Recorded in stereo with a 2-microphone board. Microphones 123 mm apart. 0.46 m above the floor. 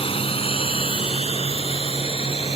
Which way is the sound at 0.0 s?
45° left (ahead or behind).